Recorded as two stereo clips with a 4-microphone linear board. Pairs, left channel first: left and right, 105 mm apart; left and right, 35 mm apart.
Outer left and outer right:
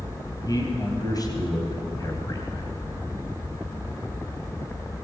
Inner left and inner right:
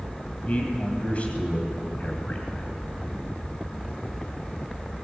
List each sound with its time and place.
0.5 s a man speaking: 35° left (ahead or behind), 3 m